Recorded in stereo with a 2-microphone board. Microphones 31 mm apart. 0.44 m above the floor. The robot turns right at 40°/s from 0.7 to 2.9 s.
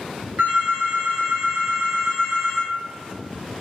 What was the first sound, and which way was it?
A phone ringing, 75° right.